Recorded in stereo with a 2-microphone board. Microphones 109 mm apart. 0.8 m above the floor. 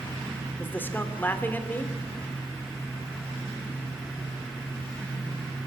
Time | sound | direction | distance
0.6 | a man speaking | 20° left (ahead or behind) | 2.5 m